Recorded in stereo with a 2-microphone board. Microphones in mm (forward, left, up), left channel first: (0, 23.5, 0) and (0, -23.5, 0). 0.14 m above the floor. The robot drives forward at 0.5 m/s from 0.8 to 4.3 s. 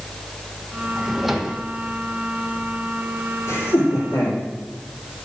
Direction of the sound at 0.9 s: 5° right (ahead or behind).